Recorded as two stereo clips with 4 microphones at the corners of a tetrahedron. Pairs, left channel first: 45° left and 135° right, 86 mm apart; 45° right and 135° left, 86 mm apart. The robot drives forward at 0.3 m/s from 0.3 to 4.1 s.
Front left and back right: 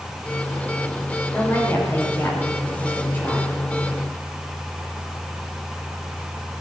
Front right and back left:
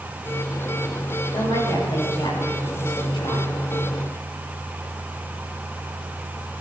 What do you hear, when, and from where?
1.3 s a woman speaking: 20° right, 5.5 m